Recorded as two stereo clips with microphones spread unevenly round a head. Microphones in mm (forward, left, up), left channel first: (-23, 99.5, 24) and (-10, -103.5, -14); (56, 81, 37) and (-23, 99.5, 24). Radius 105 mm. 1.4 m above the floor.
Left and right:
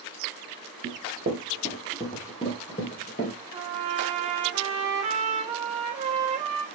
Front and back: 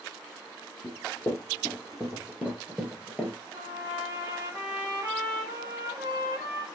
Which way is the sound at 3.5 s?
130° right.